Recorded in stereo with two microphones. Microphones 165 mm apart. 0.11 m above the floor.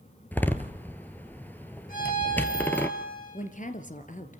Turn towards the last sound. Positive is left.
turn(degrees=50)  # may be behind; listen again after turning